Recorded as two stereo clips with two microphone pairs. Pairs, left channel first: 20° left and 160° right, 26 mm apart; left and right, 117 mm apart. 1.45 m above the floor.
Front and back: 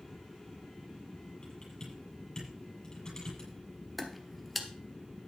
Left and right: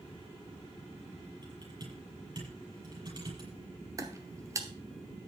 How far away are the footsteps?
About 1.6 m.